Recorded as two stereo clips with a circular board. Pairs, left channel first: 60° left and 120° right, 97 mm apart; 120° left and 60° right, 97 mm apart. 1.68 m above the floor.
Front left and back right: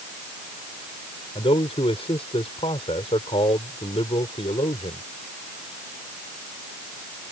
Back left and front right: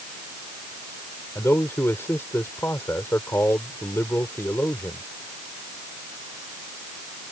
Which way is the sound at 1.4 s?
55° left.